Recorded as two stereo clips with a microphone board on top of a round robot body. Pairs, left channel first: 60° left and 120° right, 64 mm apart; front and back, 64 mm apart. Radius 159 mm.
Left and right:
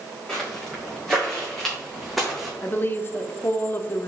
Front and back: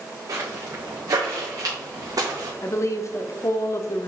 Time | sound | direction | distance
0.3 | footsteps | 140° left | 3.5 m
2.6 | a woman speaking | 15° left | 1.1 m